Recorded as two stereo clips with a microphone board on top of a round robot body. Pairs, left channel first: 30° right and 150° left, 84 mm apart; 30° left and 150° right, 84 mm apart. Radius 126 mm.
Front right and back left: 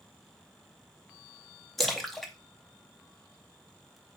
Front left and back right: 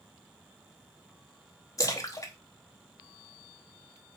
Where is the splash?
55° left, 1.0 m.